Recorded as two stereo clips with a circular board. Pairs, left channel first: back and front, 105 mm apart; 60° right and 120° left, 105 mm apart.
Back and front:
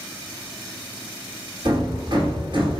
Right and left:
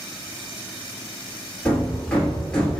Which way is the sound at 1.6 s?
20° left.